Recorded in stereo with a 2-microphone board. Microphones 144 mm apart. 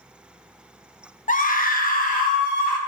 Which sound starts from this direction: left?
A scream, at 1.3 s.